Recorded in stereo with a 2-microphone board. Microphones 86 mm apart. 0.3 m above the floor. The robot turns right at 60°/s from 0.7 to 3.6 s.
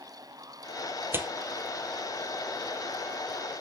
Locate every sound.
1.1 s tearing paper: 30° right (ahead or behind), 1.5 m; by 1.3 s 20° right (ahead or behind), 1.5 m